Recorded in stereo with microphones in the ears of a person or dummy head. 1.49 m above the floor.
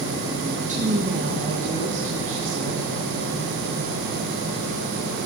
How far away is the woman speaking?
About 1.6 m.